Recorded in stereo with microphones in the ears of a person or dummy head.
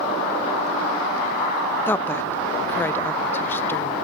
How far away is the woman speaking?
About 0.6 m.